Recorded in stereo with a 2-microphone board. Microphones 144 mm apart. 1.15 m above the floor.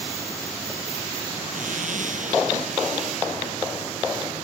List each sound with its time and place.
1.5 s a zipper: 65° right (ahead or behind)